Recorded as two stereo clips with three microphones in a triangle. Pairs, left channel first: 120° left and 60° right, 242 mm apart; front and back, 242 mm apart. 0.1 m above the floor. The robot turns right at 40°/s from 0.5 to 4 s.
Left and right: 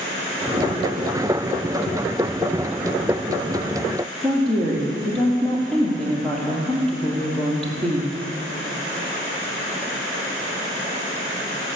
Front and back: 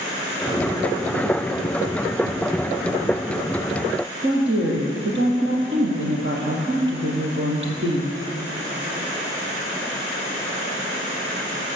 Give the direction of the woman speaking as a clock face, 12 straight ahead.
5 o'clock.